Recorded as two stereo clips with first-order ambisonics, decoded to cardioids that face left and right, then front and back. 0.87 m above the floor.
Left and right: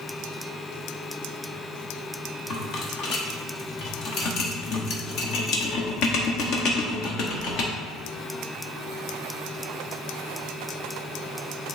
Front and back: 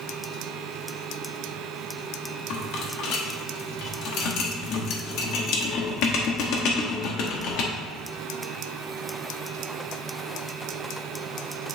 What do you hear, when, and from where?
2.5 s a rattle: 40° left, 1.0 m